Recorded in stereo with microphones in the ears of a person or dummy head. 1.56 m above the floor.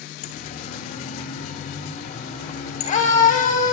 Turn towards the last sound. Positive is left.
turn(degrees=40)  # may be behind; listen again after turning